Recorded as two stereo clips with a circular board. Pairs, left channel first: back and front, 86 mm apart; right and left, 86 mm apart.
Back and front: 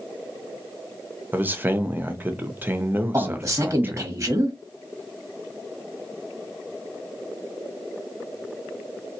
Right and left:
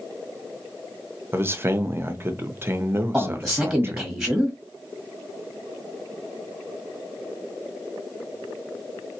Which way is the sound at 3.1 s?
5° left.